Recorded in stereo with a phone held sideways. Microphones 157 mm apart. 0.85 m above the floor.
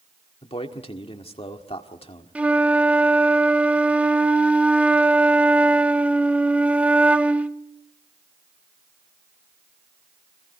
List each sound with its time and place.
0.4 s a man speaking: 40° left (ahead or behind), 1.8 m
2.4 s a flute: 10° right (ahead or behind), 0.6 m